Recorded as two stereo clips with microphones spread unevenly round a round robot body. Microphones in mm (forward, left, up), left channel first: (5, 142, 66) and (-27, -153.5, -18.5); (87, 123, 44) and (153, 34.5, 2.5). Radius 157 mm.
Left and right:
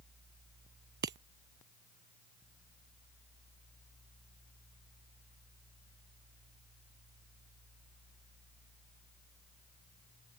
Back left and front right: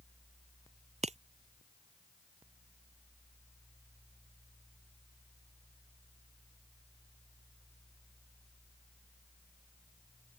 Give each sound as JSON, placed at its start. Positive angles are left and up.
{"t": 1.0, "sound": "breaking glass", "azimuth_deg": -40}